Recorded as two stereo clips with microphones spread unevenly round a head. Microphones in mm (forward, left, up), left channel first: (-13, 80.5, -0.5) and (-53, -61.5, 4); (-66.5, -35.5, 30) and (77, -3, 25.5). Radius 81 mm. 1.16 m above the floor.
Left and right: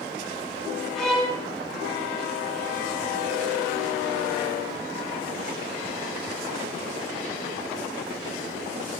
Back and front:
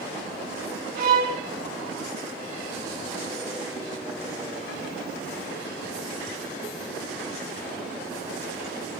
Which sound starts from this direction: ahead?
A violin, at 0.9 s.